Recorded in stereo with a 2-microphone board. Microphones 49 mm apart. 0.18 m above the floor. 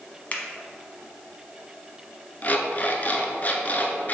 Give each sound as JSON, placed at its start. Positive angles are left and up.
{"t": 0.3, "sound": "a finger snap", "side_deg": 30, "distance_m": 0.9}
{"t": 2.4, "sound": "an alarm clock", "side_deg": 35, "distance_m": 0.8}